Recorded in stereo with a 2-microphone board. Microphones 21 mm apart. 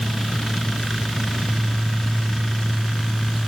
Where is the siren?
I don't hear a siren.